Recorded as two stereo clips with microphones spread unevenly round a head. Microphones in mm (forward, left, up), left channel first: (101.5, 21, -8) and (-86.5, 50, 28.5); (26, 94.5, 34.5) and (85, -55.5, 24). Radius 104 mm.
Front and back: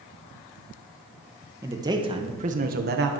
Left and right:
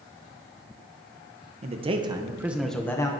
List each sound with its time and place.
1.6 s a man speaking: 105° right, 1.1 m; by 3.1 s 175° left, 0.9 m